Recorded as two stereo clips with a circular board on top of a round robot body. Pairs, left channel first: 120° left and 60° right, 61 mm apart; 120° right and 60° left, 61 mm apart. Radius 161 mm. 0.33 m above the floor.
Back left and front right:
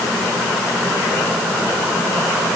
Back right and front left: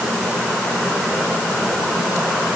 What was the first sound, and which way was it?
Only background noise.